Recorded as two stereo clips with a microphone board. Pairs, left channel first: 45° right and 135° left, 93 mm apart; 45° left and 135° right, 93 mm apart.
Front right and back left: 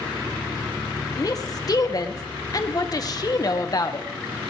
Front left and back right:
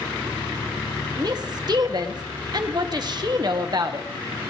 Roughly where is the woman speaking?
Right.